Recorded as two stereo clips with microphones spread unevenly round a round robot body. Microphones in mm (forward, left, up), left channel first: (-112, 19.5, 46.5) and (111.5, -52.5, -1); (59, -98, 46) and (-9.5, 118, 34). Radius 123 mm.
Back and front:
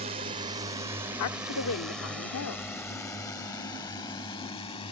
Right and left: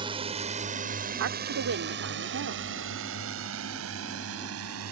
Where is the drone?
40° left; by 4.9 s 90° left.